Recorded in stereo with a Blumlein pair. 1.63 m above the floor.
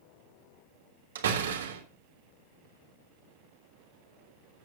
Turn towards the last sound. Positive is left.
turn(degrees=-60)